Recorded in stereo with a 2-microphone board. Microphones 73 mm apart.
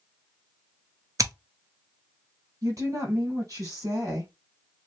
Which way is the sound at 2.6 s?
50° right (ahead or behind).